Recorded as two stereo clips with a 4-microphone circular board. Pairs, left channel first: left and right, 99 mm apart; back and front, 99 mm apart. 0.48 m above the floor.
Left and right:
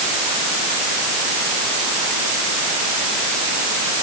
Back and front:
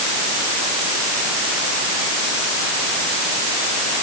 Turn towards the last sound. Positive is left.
No sound to turn to.